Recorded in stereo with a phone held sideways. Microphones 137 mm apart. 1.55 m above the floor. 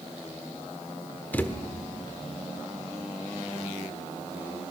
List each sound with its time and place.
1.3 s a thud: 15° left (ahead or behind), 1.3 m